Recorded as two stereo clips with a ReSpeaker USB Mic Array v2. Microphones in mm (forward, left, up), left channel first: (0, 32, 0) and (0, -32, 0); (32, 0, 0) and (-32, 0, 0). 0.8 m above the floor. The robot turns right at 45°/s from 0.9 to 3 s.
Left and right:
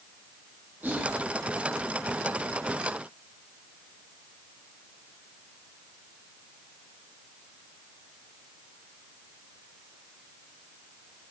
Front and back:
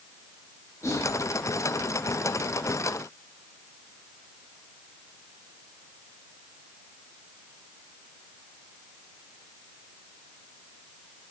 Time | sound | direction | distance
0.8 | whispering | 35° right | 1.1 m